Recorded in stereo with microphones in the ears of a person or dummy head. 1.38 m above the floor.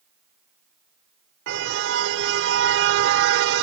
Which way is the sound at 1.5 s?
65° right (ahead or behind).